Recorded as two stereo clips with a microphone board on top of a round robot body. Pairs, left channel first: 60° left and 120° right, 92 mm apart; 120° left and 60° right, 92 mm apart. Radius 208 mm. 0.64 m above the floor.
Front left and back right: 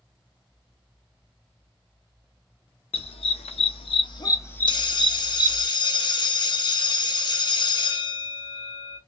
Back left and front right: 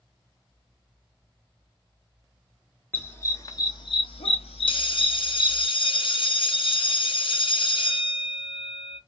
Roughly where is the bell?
Left.